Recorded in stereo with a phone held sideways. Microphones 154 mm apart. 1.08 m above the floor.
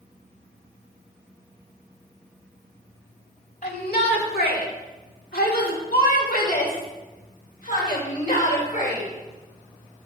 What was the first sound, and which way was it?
A shout, 75° left (ahead or behind).